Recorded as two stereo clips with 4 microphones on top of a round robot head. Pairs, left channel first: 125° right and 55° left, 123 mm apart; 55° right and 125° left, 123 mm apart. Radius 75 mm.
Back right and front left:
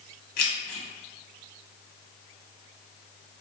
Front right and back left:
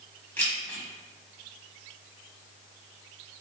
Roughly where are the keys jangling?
Behind right.